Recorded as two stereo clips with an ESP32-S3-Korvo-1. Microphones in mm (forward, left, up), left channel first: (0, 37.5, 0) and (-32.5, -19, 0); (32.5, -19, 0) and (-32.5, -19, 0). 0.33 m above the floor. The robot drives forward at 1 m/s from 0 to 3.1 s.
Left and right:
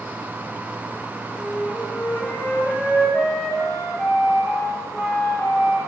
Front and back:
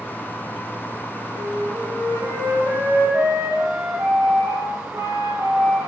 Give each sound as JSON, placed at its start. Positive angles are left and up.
{"t": 1.3, "sound": "a flute", "azimuth_deg": 145, "distance_m": 8.5}